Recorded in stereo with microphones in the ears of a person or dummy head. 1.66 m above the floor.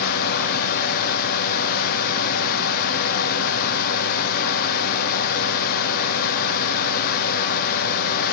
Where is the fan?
50° left (ahead or behind), 1.1 m.